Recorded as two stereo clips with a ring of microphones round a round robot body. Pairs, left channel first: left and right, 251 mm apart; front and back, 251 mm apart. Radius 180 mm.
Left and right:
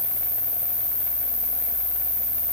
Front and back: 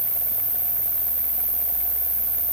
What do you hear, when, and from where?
0.0 s an insect: 45° left, 3.5 m